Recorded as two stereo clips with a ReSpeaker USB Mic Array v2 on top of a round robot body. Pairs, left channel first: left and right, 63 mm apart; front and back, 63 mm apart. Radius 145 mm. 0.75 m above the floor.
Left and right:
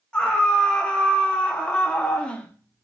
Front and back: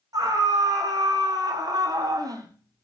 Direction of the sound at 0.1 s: 165° left.